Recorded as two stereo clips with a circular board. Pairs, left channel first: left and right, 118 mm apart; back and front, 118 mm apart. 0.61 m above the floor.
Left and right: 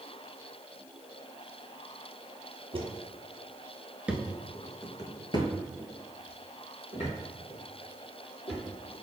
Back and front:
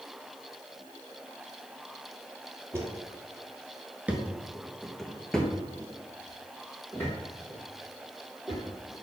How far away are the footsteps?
About 1.0 m.